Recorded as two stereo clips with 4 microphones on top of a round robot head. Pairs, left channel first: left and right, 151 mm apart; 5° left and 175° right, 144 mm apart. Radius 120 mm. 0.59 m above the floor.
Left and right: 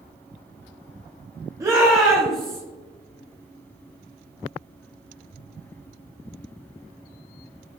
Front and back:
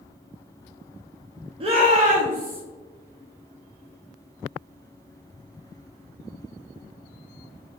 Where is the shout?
150° right, 0.8 m; by 2.6 s 175° left, 1.4 m.